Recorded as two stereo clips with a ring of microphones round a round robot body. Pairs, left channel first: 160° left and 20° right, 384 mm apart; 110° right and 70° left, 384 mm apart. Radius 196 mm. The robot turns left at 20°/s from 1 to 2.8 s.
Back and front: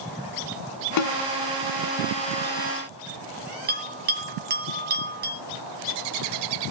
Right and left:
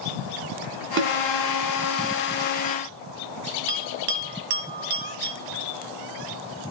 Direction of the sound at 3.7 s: 45° left.